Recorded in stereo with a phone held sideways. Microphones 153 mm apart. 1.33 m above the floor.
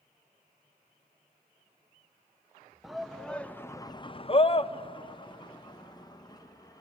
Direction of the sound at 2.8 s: 5° right (ahead or behind).